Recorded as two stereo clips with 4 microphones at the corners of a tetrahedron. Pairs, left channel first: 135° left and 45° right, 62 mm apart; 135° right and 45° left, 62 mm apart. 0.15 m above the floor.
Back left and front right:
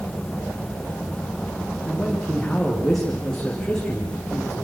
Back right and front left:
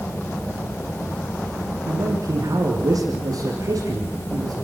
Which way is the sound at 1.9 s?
50° left.